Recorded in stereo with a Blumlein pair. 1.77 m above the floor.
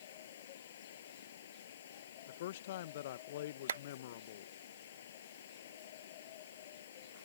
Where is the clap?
65° right.